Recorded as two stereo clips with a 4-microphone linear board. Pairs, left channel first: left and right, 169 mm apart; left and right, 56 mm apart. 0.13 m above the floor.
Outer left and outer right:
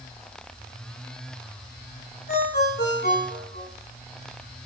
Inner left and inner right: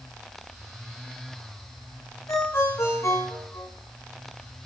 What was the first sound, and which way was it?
A ringtone, 75° left (ahead or behind).